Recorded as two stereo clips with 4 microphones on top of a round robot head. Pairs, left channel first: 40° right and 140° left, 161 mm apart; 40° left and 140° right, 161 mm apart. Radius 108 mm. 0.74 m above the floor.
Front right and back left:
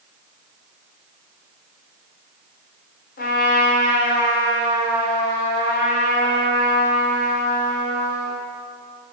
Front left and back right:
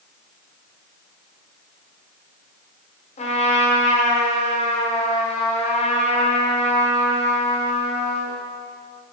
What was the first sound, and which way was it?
A trumpet, 10° right.